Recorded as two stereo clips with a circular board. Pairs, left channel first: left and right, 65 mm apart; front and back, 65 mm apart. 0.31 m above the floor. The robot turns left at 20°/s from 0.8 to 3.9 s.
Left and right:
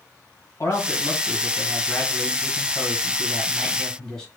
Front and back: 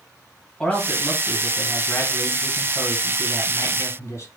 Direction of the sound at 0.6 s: 75° left.